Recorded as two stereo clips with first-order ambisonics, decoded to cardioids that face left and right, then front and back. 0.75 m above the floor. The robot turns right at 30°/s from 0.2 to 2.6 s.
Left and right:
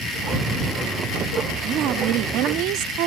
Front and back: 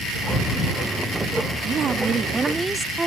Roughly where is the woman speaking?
Behind right.